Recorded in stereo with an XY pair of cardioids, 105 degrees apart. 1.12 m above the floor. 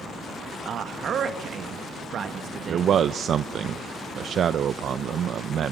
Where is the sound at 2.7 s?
60° right, 0.5 m.